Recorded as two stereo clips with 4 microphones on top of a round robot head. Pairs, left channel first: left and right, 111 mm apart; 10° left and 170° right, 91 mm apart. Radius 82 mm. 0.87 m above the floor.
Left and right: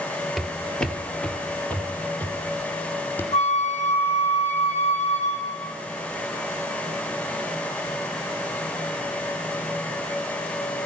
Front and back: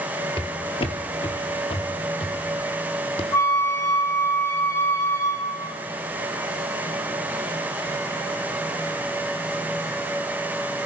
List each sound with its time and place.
0.4 s footsteps: straight ahead, 1.0 m; by 3.2 s 20° left, 2.5 m
3.3 s a flute: 70° left, 2 m